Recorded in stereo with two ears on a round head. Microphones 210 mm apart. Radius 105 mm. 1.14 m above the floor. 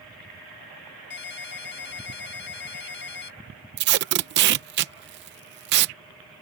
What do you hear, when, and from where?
1.1 s a ringtone: 55° left (ahead or behind)
3.8 s tape being pulled: 50° right (ahead or behind)